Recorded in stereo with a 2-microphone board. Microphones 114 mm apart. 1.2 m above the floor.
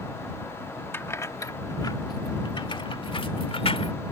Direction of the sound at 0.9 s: 20° left (ahead or behind).